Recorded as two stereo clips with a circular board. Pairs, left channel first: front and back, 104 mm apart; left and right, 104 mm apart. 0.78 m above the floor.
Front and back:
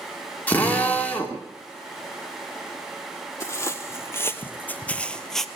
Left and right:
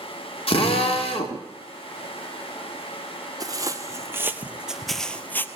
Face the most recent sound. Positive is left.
turn(degrees=80)